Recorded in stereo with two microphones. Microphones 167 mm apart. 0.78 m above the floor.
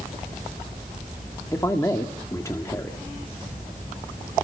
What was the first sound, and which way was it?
A man speaking, 20° left (ahead or behind).